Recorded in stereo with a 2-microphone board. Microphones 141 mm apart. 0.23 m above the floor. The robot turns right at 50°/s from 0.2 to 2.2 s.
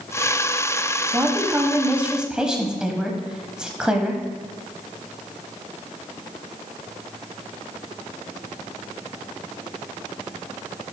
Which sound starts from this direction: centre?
A woman speaking, at 1.1 s.